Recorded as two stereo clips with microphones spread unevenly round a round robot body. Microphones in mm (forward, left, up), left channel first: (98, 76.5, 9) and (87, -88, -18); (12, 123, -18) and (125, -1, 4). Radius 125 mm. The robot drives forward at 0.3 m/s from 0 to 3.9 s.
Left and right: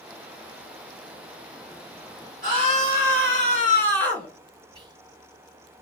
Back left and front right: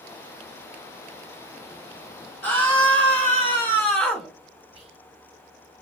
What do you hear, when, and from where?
2.4 s a scream: 145° right, 3 m; by 4.3 s 150° right, 3 m
4.7 s whispering: 90° right, 0.8 m